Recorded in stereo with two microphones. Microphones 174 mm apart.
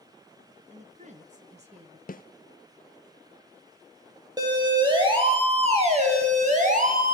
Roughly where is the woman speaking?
Right.